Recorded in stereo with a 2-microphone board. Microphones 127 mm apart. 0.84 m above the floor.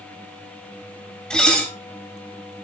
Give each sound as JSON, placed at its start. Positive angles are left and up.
{"t": 1.3, "sound": "dishes clattering", "side_deg": 5, "distance_m": 3.0}